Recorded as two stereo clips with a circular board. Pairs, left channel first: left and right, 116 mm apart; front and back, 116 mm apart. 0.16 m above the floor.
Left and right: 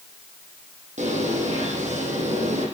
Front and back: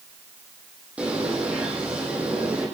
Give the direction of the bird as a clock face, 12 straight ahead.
3 o'clock.